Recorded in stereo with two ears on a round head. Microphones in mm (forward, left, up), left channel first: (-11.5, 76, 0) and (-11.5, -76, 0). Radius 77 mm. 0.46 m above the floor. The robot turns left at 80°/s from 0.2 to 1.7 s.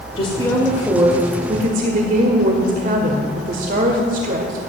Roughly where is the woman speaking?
Ahead left.